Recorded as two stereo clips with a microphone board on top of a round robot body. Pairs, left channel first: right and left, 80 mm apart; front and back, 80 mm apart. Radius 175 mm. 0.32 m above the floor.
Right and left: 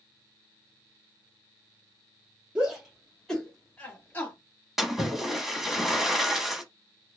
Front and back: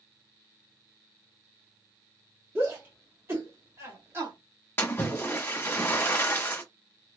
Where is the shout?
155° left, 1.4 m; by 4.3 s 135° right, 1.6 m.